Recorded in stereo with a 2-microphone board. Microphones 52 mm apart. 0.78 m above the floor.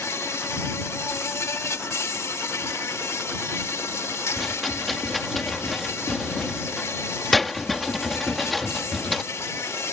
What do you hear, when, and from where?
0.0 s an insect: 70° left (ahead or behind)
4.4 s a rattle: 5° left (ahead or behind)